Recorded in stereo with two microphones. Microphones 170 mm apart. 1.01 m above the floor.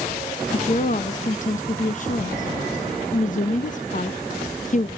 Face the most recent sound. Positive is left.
turn(degrees=50)  # may be behind; listen again after turning